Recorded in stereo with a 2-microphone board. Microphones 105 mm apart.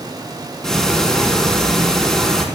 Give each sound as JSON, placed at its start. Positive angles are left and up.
{"t": 0.6, "sound": "ticking", "side_deg": 5, "distance_m": 4.0}